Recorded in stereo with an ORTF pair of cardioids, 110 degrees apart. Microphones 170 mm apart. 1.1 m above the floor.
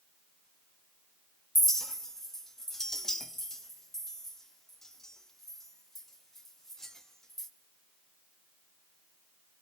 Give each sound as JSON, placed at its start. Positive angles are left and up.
{"t": 1.6, "sound": "a clink", "azimuth_deg": 5, "distance_m": 0.9}